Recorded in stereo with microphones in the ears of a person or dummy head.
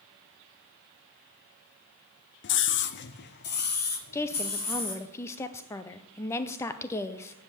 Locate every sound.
2.4 s a scream: 55° left (ahead or behind), 0.6 m; by 5.0 s 45° left (ahead or behind), 2 m
4.1 s a woman speaking: 15° left (ahead or behind), 0.6 m